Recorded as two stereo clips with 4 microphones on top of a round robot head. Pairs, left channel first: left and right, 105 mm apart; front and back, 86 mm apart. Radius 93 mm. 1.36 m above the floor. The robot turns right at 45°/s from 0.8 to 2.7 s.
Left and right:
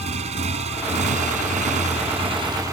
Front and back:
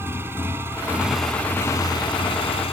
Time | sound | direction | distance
0.0 | a motorcycle | 110° right | ?